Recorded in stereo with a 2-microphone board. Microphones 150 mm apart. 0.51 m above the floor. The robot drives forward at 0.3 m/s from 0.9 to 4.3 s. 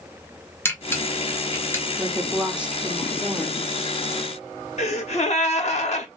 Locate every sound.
0.7 s a camera shutter: 15° left (ahead or behind), 1.4 m; by 1.9 s 20° left (ahead or behind), 1.2 m
2.0 s a woman speaking: 5° right (ahead or behind), 0.8 m
4.8 s a gasp: 50° left (ahead or behind), 1.0 m